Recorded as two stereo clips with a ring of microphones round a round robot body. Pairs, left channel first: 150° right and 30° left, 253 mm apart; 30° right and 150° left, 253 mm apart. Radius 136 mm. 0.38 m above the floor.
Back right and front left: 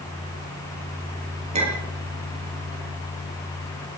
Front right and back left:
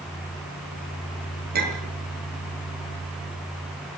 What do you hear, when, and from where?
1.5 s a clink: 95° left, 6.5 m